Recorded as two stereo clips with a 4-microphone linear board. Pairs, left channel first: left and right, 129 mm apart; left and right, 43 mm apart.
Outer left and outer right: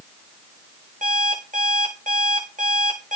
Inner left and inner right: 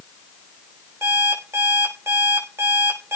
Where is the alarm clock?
75° right (ahead or behind), 6.5 m.